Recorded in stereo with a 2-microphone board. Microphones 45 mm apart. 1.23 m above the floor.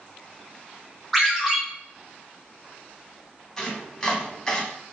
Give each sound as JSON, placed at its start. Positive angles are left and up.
{"t": 1.1, "sound": "a ringtone", "side_deg": 5, "distance_m": 1.1}
{"t": 3.6, "sound": "chopping", "side_deg": 15, "distance_m": 0.9}